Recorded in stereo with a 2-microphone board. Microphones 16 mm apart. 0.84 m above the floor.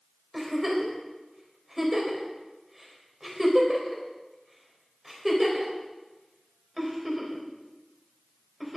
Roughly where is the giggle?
Centre.